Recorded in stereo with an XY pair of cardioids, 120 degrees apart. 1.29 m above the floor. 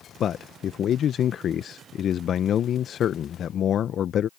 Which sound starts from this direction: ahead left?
A man speaking, at 0.2 s.